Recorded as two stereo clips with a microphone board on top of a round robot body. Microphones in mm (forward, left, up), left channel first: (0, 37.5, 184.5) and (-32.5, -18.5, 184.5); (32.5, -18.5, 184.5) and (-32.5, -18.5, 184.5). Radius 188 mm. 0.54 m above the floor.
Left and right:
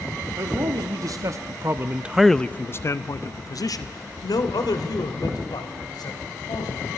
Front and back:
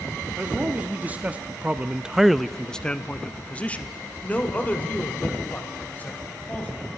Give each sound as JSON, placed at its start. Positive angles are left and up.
{"t": 0.4, "sound": "a man speaking", "azimuth_deg": -115, "distance_m": 2.0}